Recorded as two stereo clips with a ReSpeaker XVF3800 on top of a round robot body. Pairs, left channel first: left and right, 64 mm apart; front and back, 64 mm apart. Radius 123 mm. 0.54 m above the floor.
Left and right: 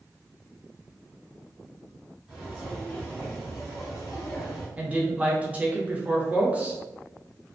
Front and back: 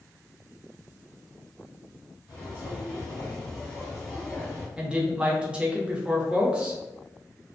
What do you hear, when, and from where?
2.3 s footsteps: 5° right, 1.5 m; by 4.7 s 100° left, 1.1 m
4.8 s a woman speaking: 125° right, 0.9 m